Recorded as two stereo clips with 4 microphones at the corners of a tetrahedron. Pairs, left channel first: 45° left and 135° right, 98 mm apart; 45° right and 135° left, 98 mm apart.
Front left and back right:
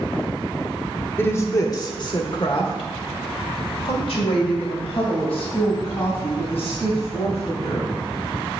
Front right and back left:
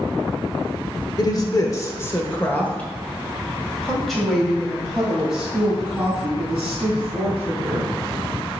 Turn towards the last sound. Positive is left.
turn(degrees=55)